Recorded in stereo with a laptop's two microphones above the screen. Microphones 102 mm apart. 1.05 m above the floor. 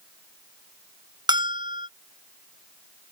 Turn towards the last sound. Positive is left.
turn(degrees=-45)  # may be behind; listen again after turning